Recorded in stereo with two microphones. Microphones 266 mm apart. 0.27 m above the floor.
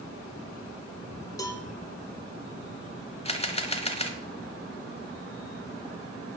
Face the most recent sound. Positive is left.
turn(degrees=25)  # may be behind; listen again after turning